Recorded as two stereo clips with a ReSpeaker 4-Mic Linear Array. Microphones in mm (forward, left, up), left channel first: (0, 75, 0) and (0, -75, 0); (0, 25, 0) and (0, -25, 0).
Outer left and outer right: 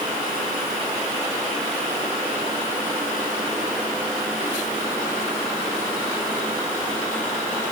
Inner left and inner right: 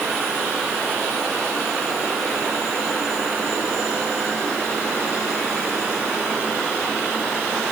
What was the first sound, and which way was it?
Only background noise.